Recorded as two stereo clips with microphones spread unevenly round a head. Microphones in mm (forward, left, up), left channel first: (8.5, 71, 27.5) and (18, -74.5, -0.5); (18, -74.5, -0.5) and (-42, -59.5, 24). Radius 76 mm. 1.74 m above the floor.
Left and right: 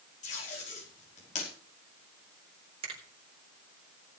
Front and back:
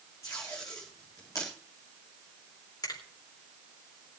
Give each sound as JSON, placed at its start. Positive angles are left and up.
{"t": 0.2, "sound": "tape being pulled", "azimuth_deg": 55, "distance_m": 5.0}
{"t": 2.8, "sound": "a finger snap", "azimuth_deg": -30, "distance_m": 4.0}